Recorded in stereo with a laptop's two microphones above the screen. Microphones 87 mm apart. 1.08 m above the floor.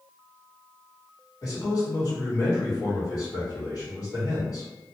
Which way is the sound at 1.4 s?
45° left (ahead or behind).